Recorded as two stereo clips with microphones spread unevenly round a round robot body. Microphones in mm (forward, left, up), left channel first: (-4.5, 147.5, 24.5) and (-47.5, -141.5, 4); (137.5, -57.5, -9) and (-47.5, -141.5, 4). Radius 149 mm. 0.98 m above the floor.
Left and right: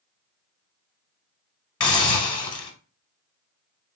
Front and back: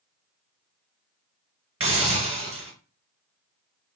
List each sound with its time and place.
1.8 s a hiss: 150° left, 0.9 m